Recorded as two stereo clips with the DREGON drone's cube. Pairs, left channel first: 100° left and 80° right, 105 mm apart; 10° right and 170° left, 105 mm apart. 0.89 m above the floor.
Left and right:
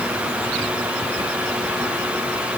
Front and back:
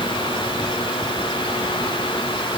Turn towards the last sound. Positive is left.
No sound to turn to.